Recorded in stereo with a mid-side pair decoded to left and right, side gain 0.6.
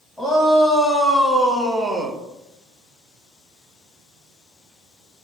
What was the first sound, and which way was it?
A shout, 10° left.